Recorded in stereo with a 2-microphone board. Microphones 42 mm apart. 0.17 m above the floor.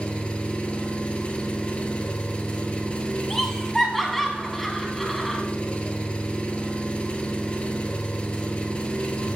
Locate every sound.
0.0 s an engine running: 25° left (ahead or behind), 0.9 m
3.3 s laughter: 5° left (ahead or behind), 1.3 m